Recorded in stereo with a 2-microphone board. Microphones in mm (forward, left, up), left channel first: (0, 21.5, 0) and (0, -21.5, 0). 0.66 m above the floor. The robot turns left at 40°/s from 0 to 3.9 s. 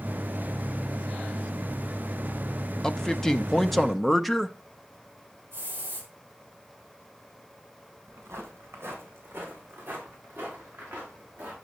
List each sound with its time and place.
2.8 s a man speaking: 15° left (ahead or behind), 0.6 m; by 4.6 s centre (ahead or behind), 0.6 m
5.5 s a hiss: 50° right (ahead or behind), 4.5 m
8.1 s footsteps: 75° right (ahead or behind), 2.5 m; by 11.6 s 35° right (ahead or behind), 5.5 m